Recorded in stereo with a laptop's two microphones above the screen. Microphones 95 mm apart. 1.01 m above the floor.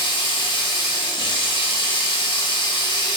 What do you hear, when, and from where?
0.0 s running water: 55° left (ahead or behind), 0.8 m